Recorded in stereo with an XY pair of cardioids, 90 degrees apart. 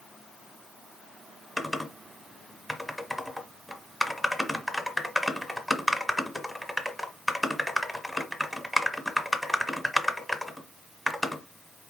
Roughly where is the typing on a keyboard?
Ahead.